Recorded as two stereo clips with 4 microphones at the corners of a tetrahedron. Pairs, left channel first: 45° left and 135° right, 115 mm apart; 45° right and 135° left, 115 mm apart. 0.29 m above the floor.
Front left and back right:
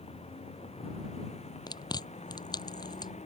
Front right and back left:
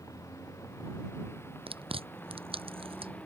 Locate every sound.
0.0 s a vehicle: 20° left; by 3.3 s 35° left
1.7 s chewing: 100° left